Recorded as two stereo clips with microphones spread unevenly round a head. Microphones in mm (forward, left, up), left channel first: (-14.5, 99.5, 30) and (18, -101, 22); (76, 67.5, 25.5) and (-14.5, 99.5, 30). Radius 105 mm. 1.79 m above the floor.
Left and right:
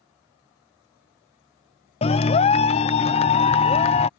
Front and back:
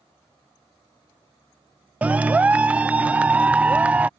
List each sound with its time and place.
2.0 s a clap: 105° left